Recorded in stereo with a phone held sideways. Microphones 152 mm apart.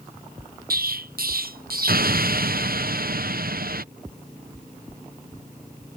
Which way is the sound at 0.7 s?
80° right.